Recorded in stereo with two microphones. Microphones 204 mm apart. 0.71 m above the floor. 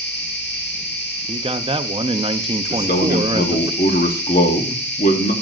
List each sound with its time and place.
0.0 s an insect: 60° left (ahead or behind), 4 m
1.3 s a man speaking: 25° right (ahead or behind), 0.6 m
2.7 s a man speaking: 45° left (ahead or behind), 1.3 m